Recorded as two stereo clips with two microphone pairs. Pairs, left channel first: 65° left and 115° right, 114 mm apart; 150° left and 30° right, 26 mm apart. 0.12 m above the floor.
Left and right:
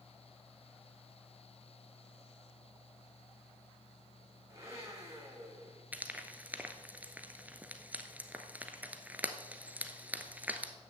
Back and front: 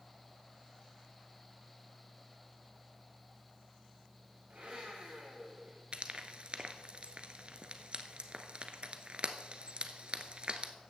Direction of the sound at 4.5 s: 55° right.